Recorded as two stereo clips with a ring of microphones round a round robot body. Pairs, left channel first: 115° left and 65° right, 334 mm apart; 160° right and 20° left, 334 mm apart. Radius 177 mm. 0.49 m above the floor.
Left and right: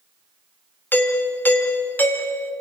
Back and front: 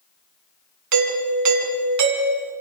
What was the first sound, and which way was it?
A doorbell, 30° left.